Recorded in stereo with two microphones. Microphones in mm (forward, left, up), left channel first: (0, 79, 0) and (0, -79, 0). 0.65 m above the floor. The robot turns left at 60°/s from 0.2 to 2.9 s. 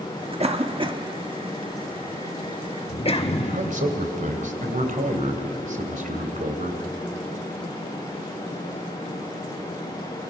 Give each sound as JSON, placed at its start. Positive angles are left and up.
{"t": 0.4, "sound": "a cough", "side_deg": -40, "distance_m": 1.3}
{"t": 3.4, "sound": "a man speaking", "side_deg": -55, "distance_m": 3.0}